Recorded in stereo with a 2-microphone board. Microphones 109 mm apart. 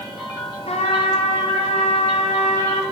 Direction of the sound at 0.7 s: 75° left (ahead or behind).